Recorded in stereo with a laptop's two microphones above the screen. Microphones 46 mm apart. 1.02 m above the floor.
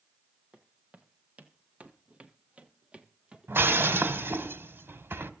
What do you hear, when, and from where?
0.5 s footsteps: 30° right (ahead or behind), 1.6 m; by 4.3 s 15° right (ahead or behind), 1.4 m
3.5 s breaking glass: 60° right (ahead or behind), 1.5 m